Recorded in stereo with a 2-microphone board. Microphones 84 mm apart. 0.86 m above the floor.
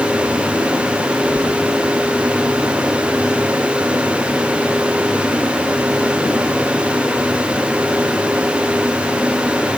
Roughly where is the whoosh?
Left.